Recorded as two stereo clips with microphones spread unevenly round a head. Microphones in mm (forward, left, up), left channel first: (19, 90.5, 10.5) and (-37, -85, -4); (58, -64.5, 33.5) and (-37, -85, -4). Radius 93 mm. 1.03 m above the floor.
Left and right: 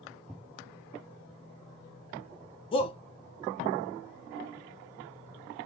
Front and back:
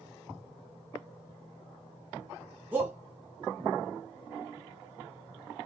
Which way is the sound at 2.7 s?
135° left.